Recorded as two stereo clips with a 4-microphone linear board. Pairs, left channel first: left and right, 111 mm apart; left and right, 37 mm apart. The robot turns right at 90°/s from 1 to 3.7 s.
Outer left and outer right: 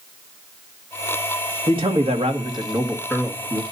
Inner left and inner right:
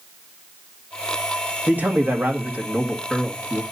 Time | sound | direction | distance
1.7 | a man speaking | 125° right | 1.7 m